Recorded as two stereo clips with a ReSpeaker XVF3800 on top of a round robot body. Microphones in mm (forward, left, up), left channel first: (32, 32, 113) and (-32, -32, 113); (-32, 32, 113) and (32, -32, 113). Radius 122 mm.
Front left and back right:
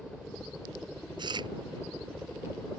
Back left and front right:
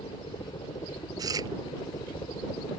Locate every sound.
0.0 s a helicopter: 130° left
1.2 s chewing: 95° right